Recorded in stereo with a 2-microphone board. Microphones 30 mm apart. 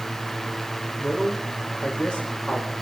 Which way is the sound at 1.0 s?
55° left (ahead or behind).